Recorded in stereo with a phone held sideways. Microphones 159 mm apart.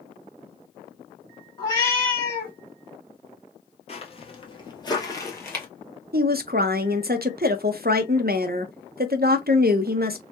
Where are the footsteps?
40° left (ahead or behind), 1.3 m; by 5.7 s 10° left (ahead or behind), 1.4 m.